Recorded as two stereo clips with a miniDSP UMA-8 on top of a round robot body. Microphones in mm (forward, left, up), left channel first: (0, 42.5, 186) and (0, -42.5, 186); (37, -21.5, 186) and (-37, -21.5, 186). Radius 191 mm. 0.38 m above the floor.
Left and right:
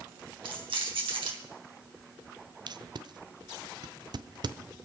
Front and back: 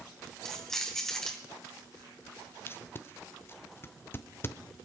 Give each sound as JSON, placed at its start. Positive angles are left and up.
{"t": 0.5, "sound": "keys jangling", "azimuth_deg": -85, "distance_m": 3.5}
{"t": 2.7, "sound": "tape being pulled", "azimuth_deg": -55, "distance_m": 0.8}